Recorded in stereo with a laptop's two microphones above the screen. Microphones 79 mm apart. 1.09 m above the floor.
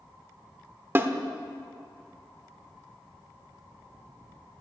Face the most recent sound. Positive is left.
turn(degrees=-30)  # may be behind; listen again after turning